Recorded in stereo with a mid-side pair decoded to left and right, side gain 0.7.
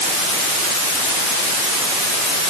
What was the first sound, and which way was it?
Only background noise.